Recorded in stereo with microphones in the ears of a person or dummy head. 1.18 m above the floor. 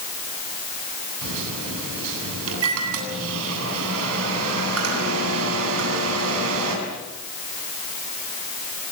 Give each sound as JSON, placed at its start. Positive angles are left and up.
{"t": 1.2, "sound": "a microwave", "side_deg": -80, "distance_m": 8.5}